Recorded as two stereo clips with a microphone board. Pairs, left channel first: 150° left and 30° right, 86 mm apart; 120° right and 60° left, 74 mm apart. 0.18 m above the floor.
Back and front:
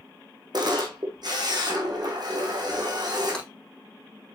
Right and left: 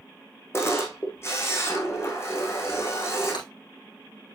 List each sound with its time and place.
0.5 s a camera shutter: 65° right, 2.5 m
3.3 s breaking glass: 130° right, 5.5 m